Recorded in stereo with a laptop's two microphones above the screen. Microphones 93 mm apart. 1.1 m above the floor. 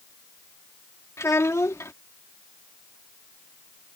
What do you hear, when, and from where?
1.2 s a child speaking: 35° left (ahead or behind)